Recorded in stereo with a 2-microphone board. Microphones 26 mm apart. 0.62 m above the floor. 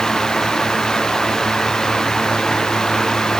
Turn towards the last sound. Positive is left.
No sound to turn to.